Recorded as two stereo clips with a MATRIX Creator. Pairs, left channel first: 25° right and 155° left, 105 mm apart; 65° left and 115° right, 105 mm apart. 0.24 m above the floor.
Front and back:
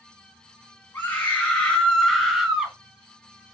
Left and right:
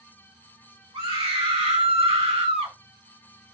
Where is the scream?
90° right, 2 m; by 2.8 s 120° right, 2.0 m.